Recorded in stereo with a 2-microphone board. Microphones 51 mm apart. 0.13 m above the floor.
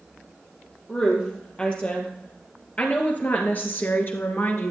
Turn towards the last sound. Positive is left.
turn(degrees=50)  # may be behind; listen again after turning